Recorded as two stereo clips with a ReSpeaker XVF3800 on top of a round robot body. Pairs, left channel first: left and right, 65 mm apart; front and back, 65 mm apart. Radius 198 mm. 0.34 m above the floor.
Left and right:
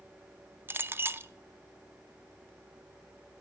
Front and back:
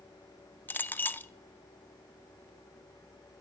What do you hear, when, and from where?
0.7 s a clink: 50° right, 0.6 m